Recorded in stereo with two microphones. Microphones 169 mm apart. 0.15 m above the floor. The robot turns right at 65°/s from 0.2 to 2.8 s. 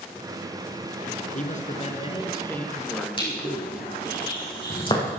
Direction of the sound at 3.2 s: 30° left (ahead or behind).